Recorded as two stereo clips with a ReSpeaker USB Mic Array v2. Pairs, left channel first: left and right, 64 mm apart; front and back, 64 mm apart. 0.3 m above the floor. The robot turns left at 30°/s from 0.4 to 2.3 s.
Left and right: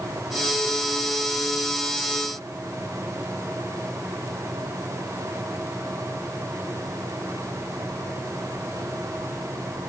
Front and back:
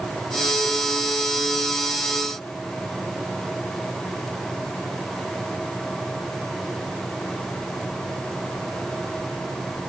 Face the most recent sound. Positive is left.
No sound to turn to.